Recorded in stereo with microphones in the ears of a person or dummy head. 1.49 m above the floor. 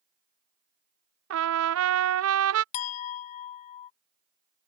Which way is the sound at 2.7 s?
40° left (ahead or behind).